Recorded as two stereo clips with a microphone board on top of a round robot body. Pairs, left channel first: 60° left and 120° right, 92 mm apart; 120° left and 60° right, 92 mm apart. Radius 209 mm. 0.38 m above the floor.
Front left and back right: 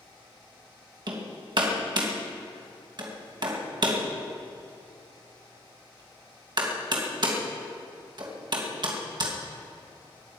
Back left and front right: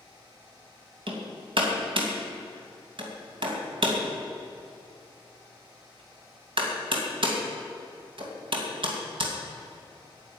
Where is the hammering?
85° right, 2.5 m.